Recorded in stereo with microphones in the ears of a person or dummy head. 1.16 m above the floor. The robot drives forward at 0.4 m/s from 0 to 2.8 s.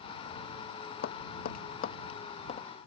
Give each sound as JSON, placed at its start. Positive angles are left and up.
{"t": 1.0, "sound": "tapping", "side_deg": 50}